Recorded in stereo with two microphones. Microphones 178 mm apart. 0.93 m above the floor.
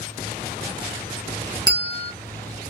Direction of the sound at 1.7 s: 25° right (ahead or behind).